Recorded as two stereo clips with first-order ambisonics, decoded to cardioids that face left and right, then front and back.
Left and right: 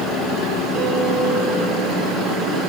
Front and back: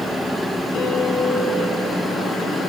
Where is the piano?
45° right, 4.5 m.